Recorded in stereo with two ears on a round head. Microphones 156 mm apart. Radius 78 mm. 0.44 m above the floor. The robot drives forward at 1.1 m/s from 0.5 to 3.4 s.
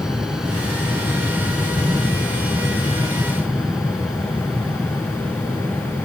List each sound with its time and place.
0.0 s an aircraft: 5° right (ahead or behind)